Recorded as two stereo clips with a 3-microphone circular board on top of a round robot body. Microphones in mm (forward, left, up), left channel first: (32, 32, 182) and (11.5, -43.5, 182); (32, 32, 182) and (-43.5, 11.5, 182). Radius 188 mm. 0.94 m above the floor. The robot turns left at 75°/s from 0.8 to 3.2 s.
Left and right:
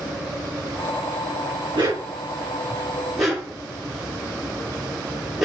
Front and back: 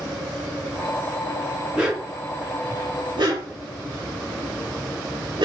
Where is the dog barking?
80° right, 7 m; by 5.5 s 170° left, 7 m.